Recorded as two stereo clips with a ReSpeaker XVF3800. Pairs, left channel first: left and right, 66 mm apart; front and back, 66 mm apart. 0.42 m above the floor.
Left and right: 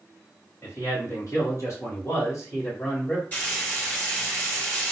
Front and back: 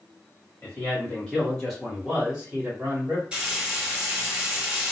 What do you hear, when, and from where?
0.6 s a man speaking: 55° left, 1.6 m; by 3.2 s 130° left, 1.4 m
3.3 s frying: 125° left, 1.5 m